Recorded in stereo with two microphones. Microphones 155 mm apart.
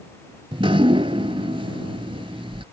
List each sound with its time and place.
0.5 s dripping: 35° right (ahead or behind)